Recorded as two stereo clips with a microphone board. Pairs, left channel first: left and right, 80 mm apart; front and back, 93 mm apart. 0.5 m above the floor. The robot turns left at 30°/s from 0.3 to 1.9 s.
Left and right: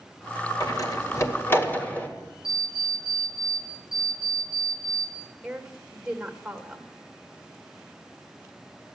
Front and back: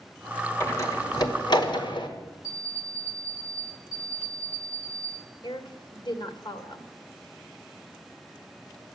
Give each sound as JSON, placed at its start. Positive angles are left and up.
{"t": 0.6, "sound": "a door slam", "azimuth_deg": 60, "distance_m": 1.8}
{"t": 2.4, "sound": "an alarm clock", "azimuth_deg": 50, "distance_m": 10.0}
{"t": 5.4, "sound": "a woman speaking", "azimuth_deg": -10, "distance_m": 1.7}